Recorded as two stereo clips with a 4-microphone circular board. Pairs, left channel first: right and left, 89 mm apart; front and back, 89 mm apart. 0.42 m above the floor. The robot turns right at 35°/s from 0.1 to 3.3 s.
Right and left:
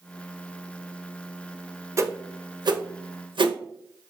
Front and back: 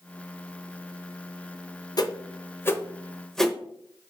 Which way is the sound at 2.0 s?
35° left.